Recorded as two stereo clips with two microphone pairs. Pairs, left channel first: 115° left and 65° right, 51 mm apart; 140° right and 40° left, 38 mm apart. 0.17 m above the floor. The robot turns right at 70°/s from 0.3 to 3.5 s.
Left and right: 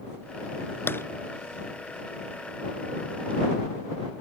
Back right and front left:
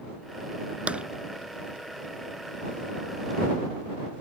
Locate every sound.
0.9 s tapping: 85° left; by 1.0 s 95° left